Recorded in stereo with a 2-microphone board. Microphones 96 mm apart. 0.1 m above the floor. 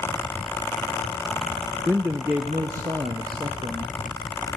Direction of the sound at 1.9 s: 20° right (ahead or behind).